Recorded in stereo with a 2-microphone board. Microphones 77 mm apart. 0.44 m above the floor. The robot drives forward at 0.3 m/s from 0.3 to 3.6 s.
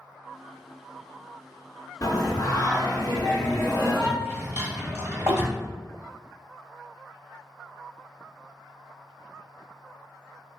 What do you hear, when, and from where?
2.0 s singing: 50° left (ahead or behind), 1.1 m; by 4.1 s 35° left (ahead or behind), 1.4 m
4.2 s a drawer: 30° right (ahead or behind), 1.2 m